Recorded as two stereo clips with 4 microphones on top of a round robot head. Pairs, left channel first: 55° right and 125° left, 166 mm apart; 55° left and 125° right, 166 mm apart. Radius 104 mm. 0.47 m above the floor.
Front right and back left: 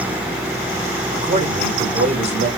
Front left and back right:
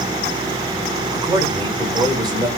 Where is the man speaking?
170° left, 1.9 m.